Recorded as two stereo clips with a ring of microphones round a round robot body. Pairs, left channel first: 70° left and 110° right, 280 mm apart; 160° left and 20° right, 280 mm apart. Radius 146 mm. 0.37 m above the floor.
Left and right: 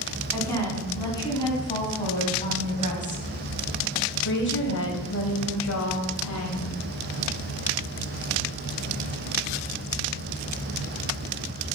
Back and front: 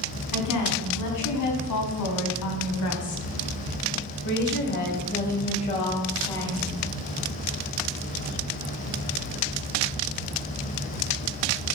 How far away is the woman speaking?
About 4 m.